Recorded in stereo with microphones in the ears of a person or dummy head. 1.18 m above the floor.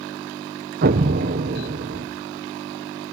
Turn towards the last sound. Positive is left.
turn(degrees=-45)  # may be behind; listen again after turning